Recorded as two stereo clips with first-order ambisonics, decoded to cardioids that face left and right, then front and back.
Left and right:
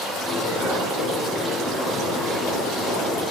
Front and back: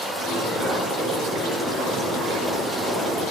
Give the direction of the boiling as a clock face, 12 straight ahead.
7 o'clock.